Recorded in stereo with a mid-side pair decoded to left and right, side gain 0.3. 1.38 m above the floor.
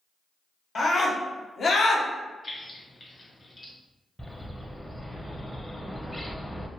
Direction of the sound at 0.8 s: 60° left.